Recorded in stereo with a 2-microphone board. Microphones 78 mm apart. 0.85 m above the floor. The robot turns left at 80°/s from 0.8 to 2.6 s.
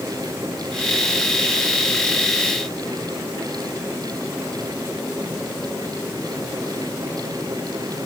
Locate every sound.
Only background noise.